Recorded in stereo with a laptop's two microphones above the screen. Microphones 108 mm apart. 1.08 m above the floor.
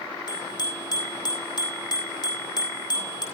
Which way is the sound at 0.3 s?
40° left (ahead or behind).